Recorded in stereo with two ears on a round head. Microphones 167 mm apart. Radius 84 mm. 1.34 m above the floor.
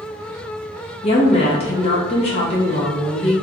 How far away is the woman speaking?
About 1.1 m.